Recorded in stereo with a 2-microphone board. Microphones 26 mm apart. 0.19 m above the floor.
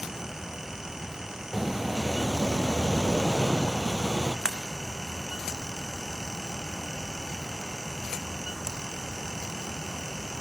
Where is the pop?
25° left (ahead or behind), 2.5 m.